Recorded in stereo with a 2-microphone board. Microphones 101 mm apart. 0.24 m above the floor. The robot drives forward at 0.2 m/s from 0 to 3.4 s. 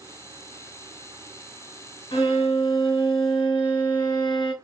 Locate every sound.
2.1 s a violin: 60° left (ahead or behind), 1.3 m; by 4.5 s 55° left (ahead or behind), 1.4 m